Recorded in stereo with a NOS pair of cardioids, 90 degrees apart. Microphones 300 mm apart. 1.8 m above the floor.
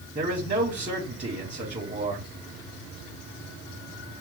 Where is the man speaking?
25° right, 1.3 m.